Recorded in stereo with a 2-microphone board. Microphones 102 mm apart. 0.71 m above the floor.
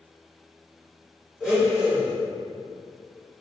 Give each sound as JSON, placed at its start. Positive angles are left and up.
{"t": 1.4, "sound": "a blender", "side_deg": -5, "distance_m": 1.8}